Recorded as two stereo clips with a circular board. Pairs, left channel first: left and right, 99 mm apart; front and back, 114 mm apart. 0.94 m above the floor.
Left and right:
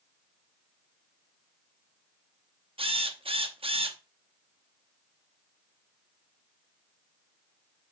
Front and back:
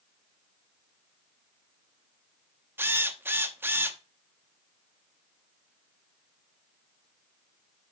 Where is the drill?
110° right, 0.8 m.